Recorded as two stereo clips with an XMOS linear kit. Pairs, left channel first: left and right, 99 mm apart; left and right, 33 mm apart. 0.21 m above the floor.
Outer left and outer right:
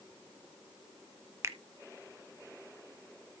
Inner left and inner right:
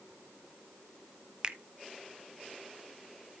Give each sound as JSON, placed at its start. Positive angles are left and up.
{"t": 1.4, "sound": "a finger snap", "side_deg": -25, "distance_m": 0.9}